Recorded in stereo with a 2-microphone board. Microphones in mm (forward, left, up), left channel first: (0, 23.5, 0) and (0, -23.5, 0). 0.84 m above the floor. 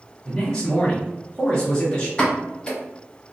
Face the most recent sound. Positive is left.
turn(degrees=20)  # may be behind; listen again after turning